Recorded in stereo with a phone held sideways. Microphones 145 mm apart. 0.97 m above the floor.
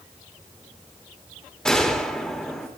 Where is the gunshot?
5° left (ahead or behind), 2 m.